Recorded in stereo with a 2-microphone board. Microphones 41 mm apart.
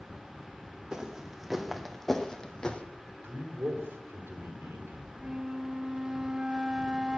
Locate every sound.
0.9 s footsteps: 15° right (ahead or behind), 2.5 m; by 2.8 s 30° left (ahead or behind), 1.9 m
3.2 s a man speaking: 75° right (ahead or behind), 4 m
5.2 s a flute: 20° right (ahead or behind), 0.6 m